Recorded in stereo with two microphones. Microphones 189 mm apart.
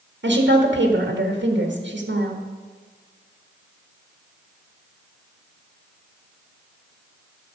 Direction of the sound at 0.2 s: 85° right.